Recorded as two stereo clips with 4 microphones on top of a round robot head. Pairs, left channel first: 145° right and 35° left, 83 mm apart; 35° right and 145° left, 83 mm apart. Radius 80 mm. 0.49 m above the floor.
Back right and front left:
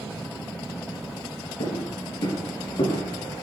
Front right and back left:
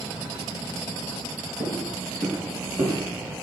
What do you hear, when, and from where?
1.6 s footsteps: 145° right, 5.5 m; by 3.0 s 155° right, 5.5 m